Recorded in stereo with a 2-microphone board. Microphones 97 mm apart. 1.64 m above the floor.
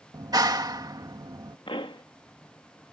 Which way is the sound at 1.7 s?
60° left (ahead or behind).